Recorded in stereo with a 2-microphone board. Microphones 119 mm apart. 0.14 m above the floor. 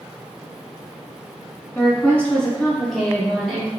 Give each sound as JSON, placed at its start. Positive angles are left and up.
{"t": 1.8, "sound": "a woman speaking", "side_deg": 15, "distance_m": 1.0}